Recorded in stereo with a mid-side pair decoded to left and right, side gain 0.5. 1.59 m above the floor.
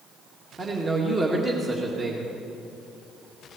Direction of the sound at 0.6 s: 30° right.